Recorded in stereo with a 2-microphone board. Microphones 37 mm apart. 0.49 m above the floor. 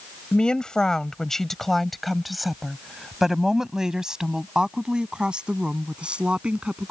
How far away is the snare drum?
No snare drum in this recording.